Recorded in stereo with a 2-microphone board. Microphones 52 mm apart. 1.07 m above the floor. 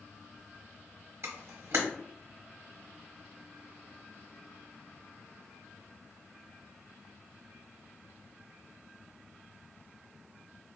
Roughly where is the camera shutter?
Right.